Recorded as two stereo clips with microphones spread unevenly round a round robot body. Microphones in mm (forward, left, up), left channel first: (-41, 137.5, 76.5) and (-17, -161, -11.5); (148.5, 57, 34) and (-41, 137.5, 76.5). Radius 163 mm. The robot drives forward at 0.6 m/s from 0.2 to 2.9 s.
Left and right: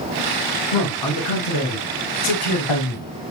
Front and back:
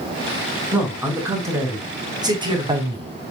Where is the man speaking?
70° left, 4.5 m; by 3.1 s 90° left, 4.5 m.